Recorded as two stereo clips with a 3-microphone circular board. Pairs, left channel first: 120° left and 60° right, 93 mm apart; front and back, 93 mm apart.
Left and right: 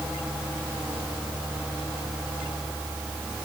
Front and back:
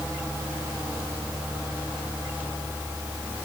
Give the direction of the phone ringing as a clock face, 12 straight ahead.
I don't hear a phone ringing.